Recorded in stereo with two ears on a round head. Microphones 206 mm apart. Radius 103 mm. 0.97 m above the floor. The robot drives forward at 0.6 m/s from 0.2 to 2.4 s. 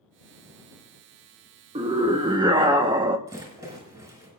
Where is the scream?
25° right (ahead or behind), 0.9 m; by 3.2 s 20° right (ahead or behind), 1.0 m.